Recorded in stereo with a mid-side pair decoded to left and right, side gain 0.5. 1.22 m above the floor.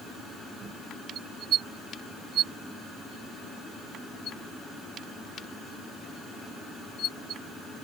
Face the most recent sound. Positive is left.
No sound to turn to.